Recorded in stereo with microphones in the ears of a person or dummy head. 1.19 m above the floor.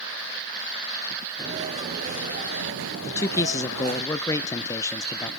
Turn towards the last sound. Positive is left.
turn(degrees=20)  # may be behind; listen again after turning